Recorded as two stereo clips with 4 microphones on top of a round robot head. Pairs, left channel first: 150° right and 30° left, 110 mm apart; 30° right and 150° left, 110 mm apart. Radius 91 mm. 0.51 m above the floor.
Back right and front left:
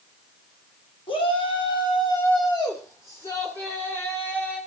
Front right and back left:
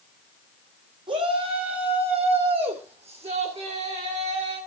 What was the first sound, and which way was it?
A shout, 175° right.